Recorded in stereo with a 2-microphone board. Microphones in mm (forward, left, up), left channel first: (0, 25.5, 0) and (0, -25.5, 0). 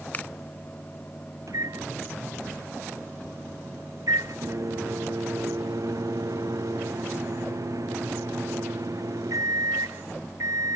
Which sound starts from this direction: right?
A microwave, at 1.5 s.